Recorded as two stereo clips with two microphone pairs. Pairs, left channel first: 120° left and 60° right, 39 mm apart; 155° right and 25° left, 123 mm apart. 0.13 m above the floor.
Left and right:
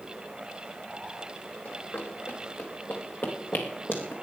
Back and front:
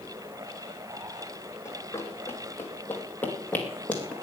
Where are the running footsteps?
135° left, 3 m; by 4.1 s 125° left, 4 m.